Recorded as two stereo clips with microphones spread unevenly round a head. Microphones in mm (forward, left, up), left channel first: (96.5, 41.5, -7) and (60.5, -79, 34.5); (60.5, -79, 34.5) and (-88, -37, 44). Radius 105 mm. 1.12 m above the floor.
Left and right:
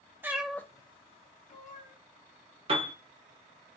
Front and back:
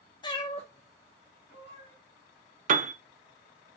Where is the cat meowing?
70° right, 0.6 m; by 1.9 s 50° left, 1.1 m.